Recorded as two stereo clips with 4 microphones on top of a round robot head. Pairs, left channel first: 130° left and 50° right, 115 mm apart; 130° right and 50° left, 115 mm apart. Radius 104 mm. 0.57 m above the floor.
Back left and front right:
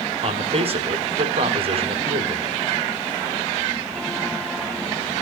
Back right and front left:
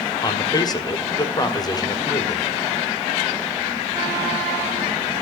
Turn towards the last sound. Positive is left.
turn(degrees=-80)